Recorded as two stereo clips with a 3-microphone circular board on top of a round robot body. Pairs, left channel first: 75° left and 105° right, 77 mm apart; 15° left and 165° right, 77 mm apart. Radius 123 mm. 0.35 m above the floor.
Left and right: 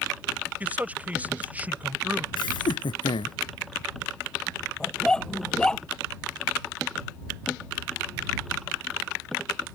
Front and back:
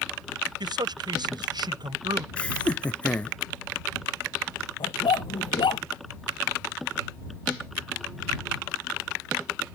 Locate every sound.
0.6 s a man speaking: 175° right
2.4 s laughter: 90° left
4.8 s a dog barking: 5° right